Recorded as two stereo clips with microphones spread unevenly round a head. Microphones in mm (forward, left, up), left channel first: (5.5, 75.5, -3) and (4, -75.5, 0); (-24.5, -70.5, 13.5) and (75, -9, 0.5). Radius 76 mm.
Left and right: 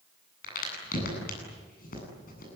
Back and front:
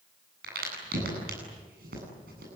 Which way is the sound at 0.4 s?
50° left.